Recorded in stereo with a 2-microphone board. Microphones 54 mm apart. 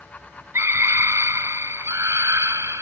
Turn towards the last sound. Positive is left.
turn(degrees=-80)